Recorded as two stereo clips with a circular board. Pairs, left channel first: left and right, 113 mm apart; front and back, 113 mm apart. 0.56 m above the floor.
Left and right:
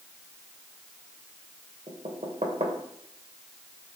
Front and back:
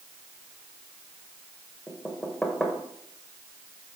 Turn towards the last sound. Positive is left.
turn(degrees=-85)